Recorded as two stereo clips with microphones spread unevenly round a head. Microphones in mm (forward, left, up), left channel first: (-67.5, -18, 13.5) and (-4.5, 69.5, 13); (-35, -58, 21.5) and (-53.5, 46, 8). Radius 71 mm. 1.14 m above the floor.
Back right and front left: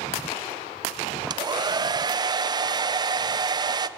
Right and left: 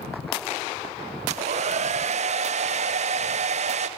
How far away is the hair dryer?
About 0.5 m.